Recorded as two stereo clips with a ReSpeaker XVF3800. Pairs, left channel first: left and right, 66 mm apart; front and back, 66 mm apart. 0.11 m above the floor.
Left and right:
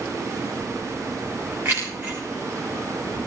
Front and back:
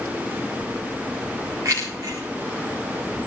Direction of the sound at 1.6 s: 145° right.